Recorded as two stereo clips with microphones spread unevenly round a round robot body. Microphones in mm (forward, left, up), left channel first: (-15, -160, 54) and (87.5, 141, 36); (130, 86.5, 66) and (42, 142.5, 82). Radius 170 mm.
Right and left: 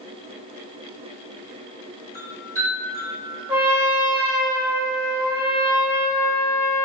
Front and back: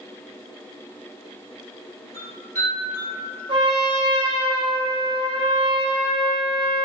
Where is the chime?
155° left, 1.4 m.